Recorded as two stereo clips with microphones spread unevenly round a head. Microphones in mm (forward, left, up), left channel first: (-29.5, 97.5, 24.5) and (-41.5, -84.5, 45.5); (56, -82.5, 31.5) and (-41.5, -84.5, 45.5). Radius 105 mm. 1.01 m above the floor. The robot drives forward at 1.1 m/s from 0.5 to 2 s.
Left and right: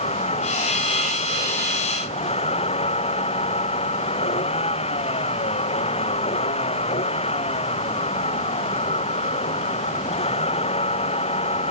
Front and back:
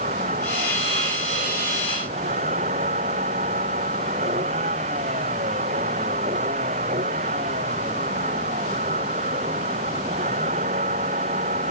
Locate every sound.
0.0 s a vehicle: 145° left